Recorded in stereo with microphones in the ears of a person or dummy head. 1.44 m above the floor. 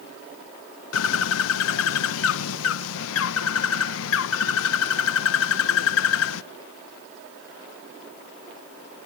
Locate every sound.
0.9 s a bird: 85° left, 1.2 m